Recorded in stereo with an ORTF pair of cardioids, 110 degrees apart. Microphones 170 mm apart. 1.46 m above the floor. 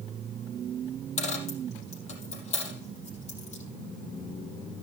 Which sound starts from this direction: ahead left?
A dropped coin, at 1.2 s.